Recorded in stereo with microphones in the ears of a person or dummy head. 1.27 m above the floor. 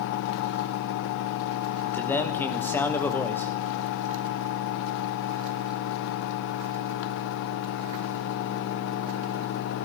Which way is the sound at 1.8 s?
5° left (ahead or behind).